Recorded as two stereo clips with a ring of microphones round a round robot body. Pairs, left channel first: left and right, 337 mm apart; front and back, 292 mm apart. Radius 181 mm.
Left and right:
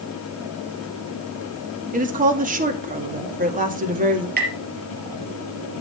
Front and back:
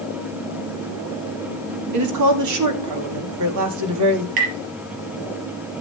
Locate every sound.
1.9 s a woman speaking: 155° right, 2 m
4.4 s tapping: 155° right, 4 m